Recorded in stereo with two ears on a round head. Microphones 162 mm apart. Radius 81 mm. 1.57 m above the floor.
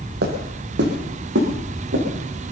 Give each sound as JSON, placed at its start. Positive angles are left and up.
{"t": 0.2, "sound": "footsteps", "side_deg": -60, "distance_m": 3.5}